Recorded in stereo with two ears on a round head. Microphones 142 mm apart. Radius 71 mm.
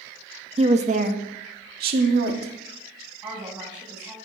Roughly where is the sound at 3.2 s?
Centre.